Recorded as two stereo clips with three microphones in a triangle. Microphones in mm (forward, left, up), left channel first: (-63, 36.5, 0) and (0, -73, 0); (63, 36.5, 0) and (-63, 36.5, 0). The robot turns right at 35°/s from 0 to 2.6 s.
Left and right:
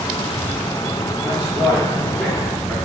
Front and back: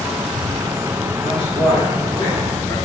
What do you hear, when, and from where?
1.2 s a man speaking: 10° left, 1.7 m; by 2.8 s 60° left, 1.7 m